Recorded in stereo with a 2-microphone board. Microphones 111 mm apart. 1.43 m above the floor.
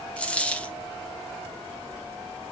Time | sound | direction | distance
0.2 | a dropped coin | 10° left (ahead or behind) | 0.8 m